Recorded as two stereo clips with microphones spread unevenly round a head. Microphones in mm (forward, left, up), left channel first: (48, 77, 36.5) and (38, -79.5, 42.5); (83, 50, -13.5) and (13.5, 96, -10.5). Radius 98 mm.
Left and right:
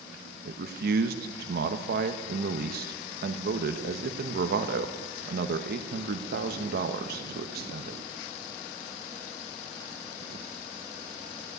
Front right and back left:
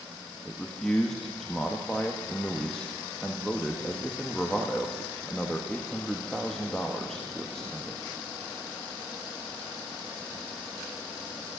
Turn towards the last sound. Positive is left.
turn(degrees=-120)